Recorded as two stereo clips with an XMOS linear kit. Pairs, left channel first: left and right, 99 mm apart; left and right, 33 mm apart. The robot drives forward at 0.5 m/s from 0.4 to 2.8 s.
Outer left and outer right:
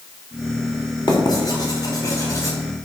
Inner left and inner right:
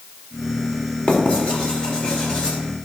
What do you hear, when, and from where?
1.1 s writing: 45° left (ahead or behind), 1.7 m; by 2.6 s 30° left (ahead or behind), 2.5 m